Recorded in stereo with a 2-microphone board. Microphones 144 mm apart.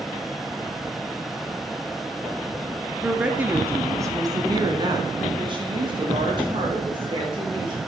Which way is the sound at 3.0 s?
5° right (ahead or behind).